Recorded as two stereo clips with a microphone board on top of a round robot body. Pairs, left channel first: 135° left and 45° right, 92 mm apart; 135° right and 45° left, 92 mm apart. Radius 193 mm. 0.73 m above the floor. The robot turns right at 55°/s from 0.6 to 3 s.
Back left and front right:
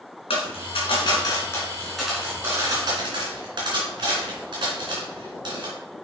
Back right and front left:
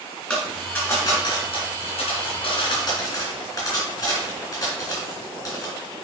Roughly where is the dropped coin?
Behind left.